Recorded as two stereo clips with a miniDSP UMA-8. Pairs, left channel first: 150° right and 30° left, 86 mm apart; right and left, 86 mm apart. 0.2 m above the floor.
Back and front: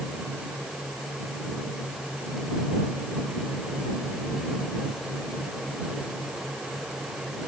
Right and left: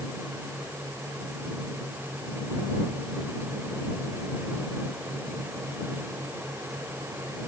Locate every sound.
Only background noise.